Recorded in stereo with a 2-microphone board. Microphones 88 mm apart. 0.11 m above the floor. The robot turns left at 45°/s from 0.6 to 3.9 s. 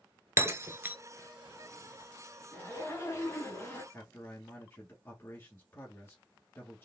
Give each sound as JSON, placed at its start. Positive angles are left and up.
{"t": 0.4, "sound": "breaking glass", "side_deg": -30, "distance_m": 0.7}
{"t": 2.5, "sound": "a zipper", "side_deg": 20, "distance_m": 1.5}
{"t": 3.9, "sound": "a man speaking", "side_deg": 30, "distance_m": 1.3}